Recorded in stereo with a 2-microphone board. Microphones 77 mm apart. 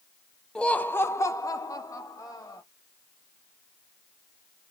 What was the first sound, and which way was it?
Laughter, 10° left (ahead or behind).